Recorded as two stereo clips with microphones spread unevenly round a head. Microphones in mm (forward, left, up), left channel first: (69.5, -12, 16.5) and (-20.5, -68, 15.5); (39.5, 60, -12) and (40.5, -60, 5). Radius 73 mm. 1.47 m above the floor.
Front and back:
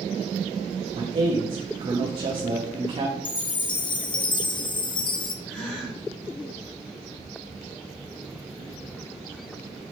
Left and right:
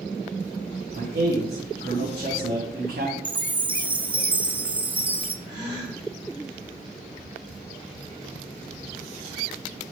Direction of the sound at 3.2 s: 15° right.